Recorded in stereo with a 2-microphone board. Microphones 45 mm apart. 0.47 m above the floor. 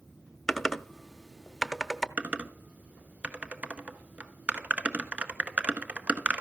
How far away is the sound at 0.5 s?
About 0.8 m.